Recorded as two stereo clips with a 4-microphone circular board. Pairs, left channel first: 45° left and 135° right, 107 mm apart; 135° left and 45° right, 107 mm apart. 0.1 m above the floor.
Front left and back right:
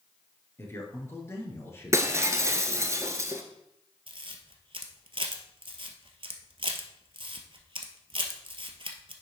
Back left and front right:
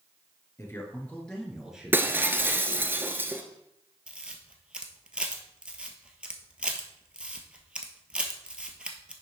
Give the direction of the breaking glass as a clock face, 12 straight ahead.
3 o'clock.